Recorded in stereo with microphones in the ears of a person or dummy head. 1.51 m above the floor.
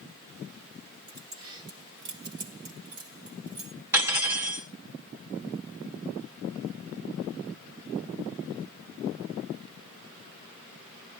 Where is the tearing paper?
No tearing paper in this recording.